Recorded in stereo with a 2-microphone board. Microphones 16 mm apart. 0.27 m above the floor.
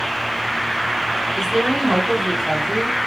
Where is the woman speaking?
35° right (ahead or behind), 1.9 m.